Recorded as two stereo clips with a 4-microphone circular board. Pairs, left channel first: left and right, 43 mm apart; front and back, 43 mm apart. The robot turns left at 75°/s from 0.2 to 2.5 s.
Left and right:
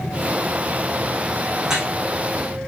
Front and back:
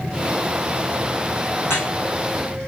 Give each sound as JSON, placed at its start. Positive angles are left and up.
{"t": 1.6, "sound": "dripping", "azimuth_deg": -5, "distance_m": 4.5}